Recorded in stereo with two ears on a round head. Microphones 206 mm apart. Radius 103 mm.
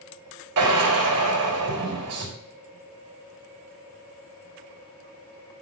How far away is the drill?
About 3 m.